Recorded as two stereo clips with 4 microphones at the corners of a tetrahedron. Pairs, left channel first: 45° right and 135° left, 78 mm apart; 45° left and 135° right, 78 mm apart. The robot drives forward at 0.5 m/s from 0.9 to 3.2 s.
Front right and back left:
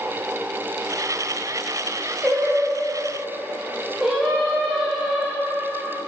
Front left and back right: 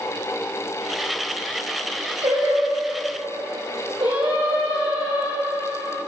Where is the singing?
140° right, 3.5 m; by 6.0 s 145° right, 4 m.